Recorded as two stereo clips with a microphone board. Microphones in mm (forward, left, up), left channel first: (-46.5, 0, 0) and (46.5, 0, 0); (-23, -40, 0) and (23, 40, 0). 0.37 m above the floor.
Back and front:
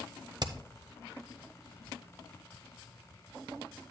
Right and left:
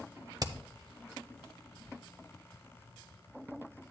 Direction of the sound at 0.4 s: 25° left.